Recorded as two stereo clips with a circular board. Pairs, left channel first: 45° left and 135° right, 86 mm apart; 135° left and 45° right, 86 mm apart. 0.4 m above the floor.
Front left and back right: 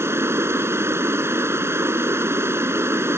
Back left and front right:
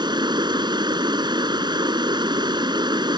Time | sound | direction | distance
0.0 | running water | 75° right | ?